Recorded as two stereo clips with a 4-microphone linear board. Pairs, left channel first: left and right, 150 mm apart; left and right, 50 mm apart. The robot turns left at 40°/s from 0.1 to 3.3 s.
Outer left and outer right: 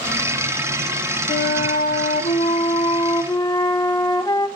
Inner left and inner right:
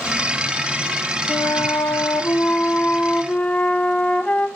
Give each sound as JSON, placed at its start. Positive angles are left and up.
{"t": 1.3, "sound": "a flute", "azimuth_deg": 105, "distance_m": 0.6}